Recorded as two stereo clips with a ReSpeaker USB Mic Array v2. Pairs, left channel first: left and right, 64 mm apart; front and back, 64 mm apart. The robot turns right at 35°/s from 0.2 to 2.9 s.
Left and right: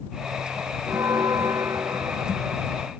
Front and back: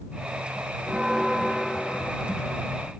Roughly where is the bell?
Right.